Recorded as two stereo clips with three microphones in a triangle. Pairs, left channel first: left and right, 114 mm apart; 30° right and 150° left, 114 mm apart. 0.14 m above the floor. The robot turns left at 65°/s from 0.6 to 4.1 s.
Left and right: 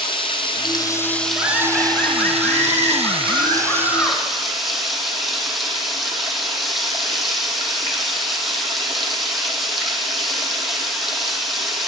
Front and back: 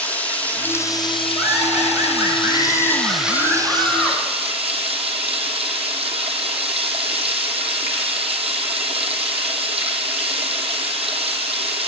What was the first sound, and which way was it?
Running water, 45° left.